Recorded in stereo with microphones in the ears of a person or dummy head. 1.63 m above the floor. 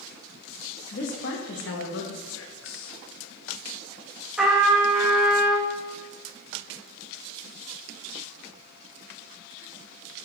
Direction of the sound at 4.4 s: Centre (ahead or behind).